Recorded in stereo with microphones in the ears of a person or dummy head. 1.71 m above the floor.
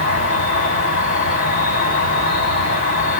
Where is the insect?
35° left (ahead or behind), 1.6 m.